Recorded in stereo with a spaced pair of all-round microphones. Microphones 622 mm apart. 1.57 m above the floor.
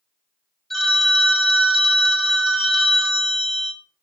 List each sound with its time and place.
0.7 s a phone ringing: centre (ahead or behind), 1.2 m